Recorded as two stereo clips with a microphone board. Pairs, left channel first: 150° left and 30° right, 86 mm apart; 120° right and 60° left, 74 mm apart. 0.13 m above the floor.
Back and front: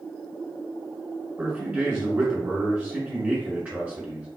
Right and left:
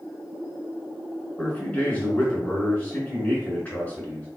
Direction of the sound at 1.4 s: 80° right.